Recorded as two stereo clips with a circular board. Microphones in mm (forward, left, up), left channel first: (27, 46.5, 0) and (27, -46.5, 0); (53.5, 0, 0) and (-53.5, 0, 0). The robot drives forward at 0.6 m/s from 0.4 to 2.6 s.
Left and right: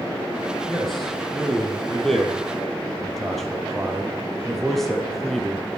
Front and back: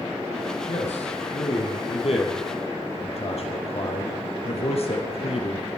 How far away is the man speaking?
About 4 m.